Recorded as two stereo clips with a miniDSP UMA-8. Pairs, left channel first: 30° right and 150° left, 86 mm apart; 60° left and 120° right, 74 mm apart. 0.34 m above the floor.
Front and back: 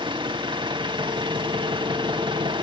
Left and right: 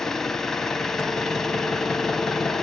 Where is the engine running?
145° left, 1.4 m.